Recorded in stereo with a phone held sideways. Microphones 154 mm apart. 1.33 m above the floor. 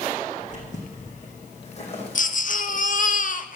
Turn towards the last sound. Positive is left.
turn(degrees=60)  # may be behind; listen again after turning